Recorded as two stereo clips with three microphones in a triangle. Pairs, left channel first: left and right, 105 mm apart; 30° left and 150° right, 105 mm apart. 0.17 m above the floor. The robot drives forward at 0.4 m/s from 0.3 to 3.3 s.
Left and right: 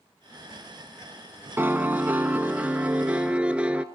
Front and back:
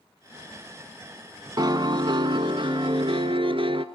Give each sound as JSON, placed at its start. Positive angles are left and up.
{"t": 1.6, "sound": "a piano", "azimuth_deg": -150, "distance_m": 0.7}